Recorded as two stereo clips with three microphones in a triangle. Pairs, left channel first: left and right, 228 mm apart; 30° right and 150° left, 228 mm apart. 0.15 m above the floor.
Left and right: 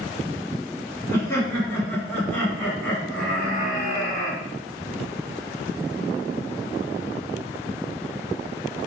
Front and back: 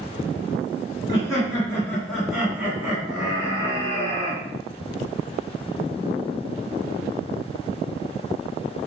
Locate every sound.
1.1 s laughter: 25° left, 1.8 m; by 4.4 s 175° right, 2.0 m